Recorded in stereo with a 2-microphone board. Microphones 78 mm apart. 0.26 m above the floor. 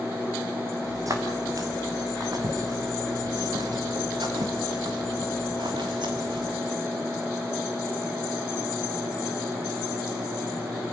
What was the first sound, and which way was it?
Footsteps, 45° right (ahead or behind).